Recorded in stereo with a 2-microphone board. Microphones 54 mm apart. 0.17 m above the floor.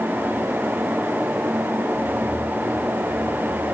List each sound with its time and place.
Only background noise.